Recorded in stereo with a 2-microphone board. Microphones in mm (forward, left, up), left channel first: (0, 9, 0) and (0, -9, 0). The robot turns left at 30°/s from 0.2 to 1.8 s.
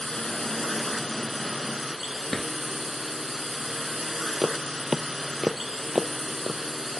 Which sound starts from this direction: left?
A drawer, at 2.3 s.